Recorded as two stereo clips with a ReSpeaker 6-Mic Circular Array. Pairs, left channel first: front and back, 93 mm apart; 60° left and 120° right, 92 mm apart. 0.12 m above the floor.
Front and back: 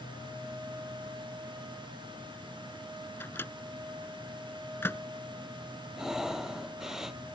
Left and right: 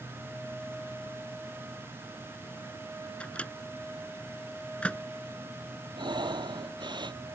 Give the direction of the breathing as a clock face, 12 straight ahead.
3 o'clock.